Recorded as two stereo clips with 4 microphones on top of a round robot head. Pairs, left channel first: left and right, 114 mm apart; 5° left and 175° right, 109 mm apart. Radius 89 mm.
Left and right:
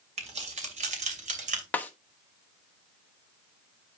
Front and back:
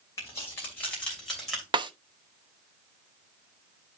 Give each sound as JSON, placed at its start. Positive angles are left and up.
{"t": 0.2, "sound": "keys jangling", "azimuth_deg": -65, "distance_m": 2.5}
{"t": 1.7, "sound": "a snare drum", "azimuth_deg": 165, "distance_m": 0.9}